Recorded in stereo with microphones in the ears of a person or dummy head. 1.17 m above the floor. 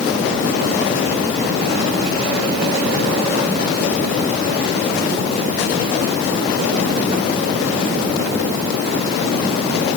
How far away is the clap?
No clap in this recording.